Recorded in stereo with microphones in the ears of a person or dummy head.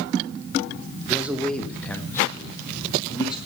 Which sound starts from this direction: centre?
A man speaking, at 1.1 s.